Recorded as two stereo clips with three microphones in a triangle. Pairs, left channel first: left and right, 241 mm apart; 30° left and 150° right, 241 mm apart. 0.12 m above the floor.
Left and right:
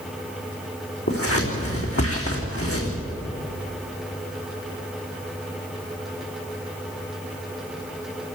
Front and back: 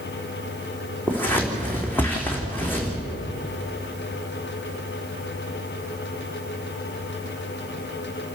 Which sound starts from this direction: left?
Scissors, at 1.1 s.